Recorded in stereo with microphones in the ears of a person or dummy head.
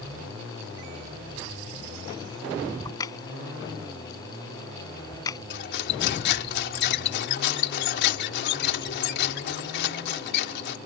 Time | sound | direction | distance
2.9 | a crack | 25° left (ahead or behind) | ?
5.5 | cutlery clinking | 70° left (ahead or behind) | ?